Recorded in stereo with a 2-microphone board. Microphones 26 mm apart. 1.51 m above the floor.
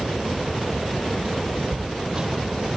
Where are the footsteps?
35° right (ahead or behind), 2 m.